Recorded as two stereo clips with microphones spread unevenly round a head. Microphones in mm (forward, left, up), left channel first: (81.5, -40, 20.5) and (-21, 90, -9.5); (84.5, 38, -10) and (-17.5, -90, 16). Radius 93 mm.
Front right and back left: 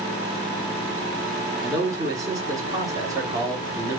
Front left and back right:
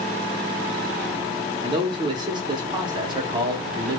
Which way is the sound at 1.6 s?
155° right.